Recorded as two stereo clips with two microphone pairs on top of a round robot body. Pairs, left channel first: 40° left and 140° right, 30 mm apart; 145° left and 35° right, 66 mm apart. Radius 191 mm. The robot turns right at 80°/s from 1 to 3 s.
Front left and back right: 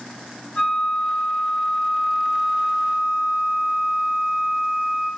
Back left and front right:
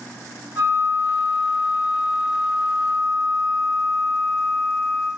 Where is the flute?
25° left, 3.5 m; by 5.1 s 175° right, 3.5 m.